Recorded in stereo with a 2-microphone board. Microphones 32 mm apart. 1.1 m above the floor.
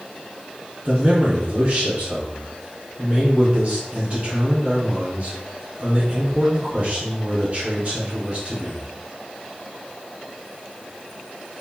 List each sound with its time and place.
0.8 s a man speaking: 45° right (ahead or behind), 2 m